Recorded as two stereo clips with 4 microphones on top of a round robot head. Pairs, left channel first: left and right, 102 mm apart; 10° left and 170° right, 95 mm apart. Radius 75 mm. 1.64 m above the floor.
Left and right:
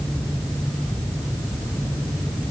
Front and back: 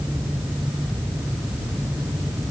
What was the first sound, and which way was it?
Only background noise.